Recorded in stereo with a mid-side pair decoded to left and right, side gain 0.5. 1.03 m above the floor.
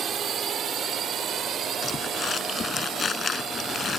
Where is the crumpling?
35° left.